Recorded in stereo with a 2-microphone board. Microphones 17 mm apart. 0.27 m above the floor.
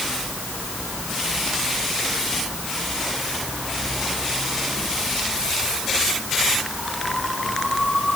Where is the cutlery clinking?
No cutlery clinking in this recording.